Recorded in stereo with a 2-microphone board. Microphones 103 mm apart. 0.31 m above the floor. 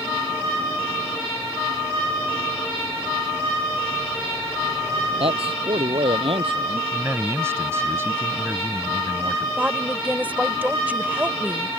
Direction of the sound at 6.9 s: 25° right (ahead or behind).